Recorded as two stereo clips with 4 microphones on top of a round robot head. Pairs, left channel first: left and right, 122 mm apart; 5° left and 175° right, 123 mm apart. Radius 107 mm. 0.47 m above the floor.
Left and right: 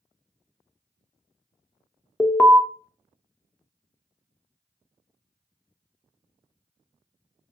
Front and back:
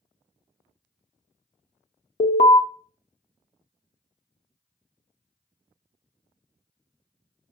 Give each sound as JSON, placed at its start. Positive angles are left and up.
{"t": 2.2, "sound": "an alarm", "azimuth_deg": 15, "distance_m": 0.6}